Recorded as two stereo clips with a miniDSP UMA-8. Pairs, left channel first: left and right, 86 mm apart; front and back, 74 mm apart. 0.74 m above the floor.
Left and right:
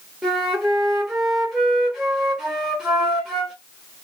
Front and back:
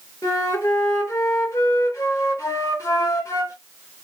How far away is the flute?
About 1.3 m.